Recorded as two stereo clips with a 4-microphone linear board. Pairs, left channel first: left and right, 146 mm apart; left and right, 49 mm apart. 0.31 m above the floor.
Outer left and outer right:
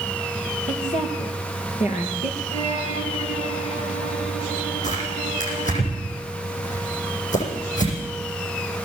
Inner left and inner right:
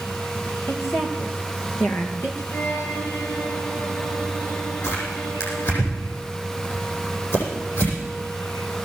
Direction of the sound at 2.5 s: 50° left (ahead or behind).